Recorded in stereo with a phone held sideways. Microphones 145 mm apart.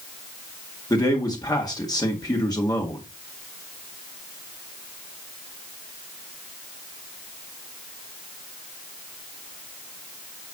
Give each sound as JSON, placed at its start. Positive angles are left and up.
{"t": 0.9, "sound": "a man speaking", "side_deg": 25, "distance_m": 1.8}